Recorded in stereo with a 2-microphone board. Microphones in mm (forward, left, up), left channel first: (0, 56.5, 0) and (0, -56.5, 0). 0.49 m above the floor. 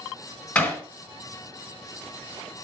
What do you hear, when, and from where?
0.6 s hammering: 15° left (ahead or behind), 3 m